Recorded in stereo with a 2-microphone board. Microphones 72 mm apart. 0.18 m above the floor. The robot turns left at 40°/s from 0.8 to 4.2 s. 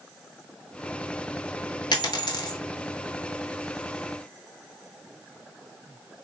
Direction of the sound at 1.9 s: 75° left (ahead or behind).